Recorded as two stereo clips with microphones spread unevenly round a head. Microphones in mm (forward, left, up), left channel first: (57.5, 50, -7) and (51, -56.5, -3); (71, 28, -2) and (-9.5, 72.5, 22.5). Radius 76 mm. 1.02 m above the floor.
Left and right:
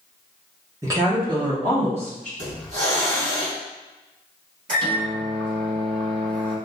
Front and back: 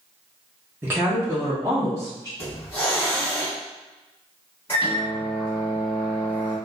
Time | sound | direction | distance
0.8 | a woman speaking | 125° right | 0.6 m
2.4 | a hiss | 115° right | 1.8 m
4.7 | a microwave | 105° right | 1.3 m